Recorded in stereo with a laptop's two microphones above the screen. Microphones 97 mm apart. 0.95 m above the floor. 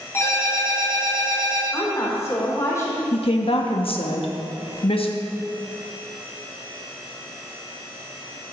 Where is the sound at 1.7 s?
30° left (ahead or behind), 3.5 m.